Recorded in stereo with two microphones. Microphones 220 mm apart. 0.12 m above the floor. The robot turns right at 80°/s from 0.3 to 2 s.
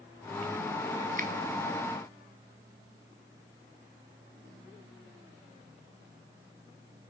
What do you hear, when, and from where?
1.2 s a finger snap: 40° right (ahead or behind), 1.2 m